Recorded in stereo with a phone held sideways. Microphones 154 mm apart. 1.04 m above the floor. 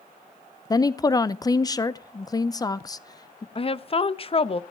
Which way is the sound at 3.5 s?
40° left (ahead or behind).